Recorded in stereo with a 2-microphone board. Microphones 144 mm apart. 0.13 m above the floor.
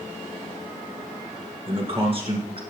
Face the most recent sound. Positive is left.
turn(degrees=-40)  # may be behind; listen again after turning